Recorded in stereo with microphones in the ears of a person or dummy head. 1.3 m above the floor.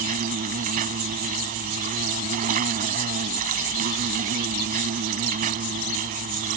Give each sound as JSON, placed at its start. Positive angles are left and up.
{"t": 0.0, "sound": "an insect", "side_deg": -45}